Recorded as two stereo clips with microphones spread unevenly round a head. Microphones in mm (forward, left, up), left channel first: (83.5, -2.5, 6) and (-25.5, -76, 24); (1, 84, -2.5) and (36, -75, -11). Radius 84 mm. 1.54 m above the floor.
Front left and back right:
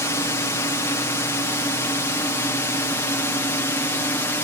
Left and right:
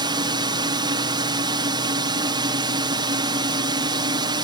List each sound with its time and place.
0.0 s a drone: 25° right